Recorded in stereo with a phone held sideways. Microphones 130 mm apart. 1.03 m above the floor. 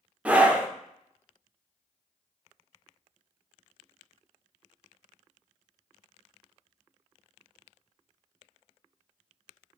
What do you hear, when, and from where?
0.2 s a scream: 10° right (ahead or behind), 0.6 m